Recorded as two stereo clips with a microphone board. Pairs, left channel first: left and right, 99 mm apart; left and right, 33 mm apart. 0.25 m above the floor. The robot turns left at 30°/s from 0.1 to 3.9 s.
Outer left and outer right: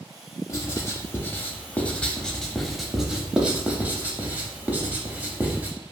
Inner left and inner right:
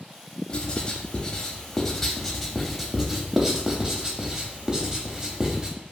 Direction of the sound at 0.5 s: 30° left (ahead or behind).